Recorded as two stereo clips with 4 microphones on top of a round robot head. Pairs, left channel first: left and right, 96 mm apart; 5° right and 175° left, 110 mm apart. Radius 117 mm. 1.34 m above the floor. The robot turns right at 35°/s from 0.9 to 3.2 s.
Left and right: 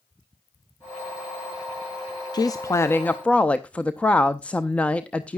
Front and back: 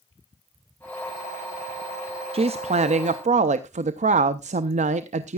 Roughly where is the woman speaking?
Behind left.